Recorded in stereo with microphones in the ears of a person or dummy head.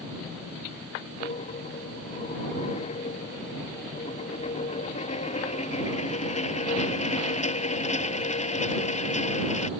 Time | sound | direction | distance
1.2 | a dropped coin | 40° left (ahead or behind) | ?